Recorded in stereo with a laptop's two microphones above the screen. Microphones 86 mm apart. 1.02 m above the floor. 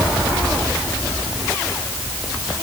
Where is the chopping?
No chopping in this recording.